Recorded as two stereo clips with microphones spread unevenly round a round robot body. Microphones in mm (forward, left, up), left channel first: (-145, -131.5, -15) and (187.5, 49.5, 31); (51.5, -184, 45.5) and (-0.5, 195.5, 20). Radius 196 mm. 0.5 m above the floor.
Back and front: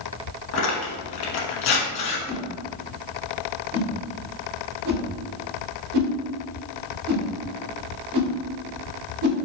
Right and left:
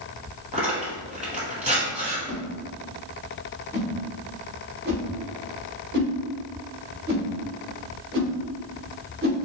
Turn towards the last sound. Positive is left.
turn(degrees=45)